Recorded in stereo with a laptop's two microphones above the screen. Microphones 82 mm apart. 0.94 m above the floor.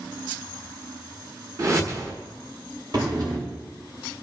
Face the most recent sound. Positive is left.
turn(degrees=-50)  # may be behind; listen again after turning